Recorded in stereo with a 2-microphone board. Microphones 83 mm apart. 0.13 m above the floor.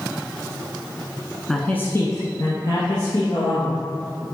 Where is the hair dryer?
No hair dryer in this recording.